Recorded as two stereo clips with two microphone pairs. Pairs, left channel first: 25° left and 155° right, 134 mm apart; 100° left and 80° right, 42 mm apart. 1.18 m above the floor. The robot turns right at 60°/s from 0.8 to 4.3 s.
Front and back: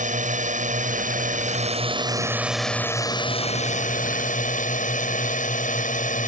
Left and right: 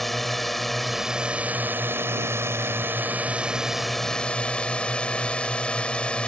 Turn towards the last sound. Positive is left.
turn(degrees=35)